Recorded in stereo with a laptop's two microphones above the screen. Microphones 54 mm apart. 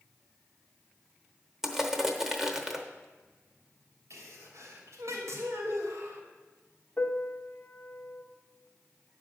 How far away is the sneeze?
About 3 m.